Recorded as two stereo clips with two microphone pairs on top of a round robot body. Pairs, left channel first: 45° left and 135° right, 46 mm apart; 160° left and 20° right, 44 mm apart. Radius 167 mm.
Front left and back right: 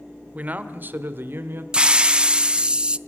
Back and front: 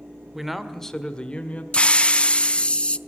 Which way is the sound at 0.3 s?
95° right.